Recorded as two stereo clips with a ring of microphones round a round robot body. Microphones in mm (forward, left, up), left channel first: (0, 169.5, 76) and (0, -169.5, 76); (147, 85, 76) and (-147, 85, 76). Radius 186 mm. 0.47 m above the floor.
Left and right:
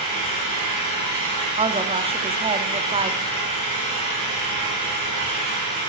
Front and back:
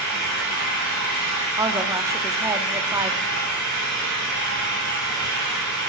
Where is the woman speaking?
125° right, 1.2 m.